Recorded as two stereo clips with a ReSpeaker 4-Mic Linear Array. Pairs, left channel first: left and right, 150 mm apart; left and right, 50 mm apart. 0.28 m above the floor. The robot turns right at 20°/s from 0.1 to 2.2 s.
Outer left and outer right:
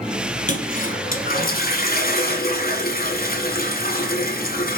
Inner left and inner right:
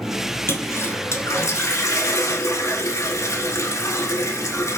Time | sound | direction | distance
0.5 | a toilet flushing | 60° left | 0.7 m